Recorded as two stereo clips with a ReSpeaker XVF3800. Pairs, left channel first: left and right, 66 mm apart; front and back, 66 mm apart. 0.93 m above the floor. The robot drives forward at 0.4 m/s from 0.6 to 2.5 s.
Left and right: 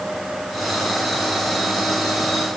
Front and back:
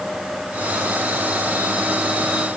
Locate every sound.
Only background noise.